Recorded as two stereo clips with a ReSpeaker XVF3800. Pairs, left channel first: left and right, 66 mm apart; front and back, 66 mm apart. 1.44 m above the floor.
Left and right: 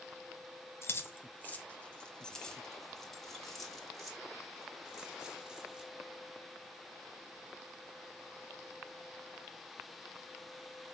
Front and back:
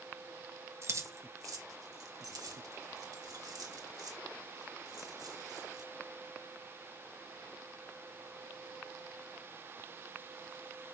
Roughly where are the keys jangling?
Behind left.